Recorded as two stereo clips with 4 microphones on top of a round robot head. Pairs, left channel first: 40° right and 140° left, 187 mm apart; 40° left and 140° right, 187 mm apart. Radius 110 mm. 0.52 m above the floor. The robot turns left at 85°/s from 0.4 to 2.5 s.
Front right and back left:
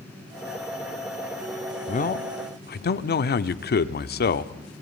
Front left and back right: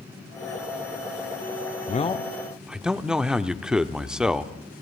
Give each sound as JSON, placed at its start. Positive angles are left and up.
{"t": 1.9, "sound": "a man speaking", "azimuth_deg": 0, "distance_m": 1.1}